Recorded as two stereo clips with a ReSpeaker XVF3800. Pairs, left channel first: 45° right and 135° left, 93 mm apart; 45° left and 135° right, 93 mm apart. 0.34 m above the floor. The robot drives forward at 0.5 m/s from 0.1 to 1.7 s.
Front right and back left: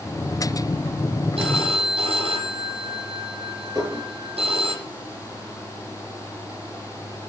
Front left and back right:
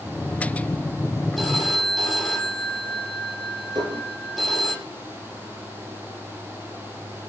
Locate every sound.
1.4 s a phone ringing: 135° left, 7 m
3.8 s dishes clattering: 175° right, 5.5 m